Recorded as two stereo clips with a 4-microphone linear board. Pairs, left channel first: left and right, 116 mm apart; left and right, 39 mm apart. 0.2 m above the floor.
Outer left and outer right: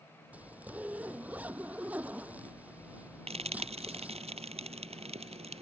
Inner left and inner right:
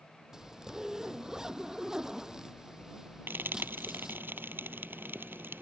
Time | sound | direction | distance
0.3 | a zipper | 15° right (ahead or behind) | ?
3.3 | frying | 70° right (ahead or behind) | ?